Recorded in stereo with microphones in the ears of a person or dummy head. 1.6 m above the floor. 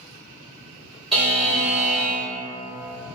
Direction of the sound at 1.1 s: Centre (ahead or behind).